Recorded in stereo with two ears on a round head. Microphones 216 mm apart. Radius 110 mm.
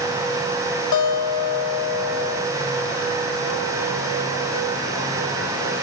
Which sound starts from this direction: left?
A guitar, at 0.9 s.